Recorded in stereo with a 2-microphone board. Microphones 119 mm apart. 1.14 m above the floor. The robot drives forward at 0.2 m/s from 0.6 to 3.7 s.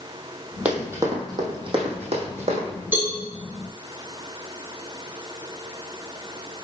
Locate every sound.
0.7 s running footsteps: 10° right (ahead or behind), 2.0 m; by 2.7 s 60° right (ahead or behind), 3.5 m
2.9 s a cowbell: 15° right (ahead or behind), 3.5 m